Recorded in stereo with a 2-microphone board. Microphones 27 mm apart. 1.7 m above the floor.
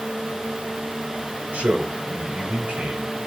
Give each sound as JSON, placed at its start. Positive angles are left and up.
{"t": 1.5, "sound": "a man speaking", "side_deg": -75, "distance_m": 7.5}